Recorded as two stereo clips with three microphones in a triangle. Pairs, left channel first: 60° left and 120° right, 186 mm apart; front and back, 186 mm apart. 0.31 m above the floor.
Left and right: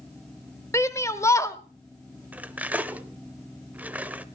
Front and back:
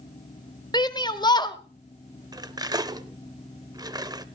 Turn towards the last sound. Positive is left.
turn(degrees=175)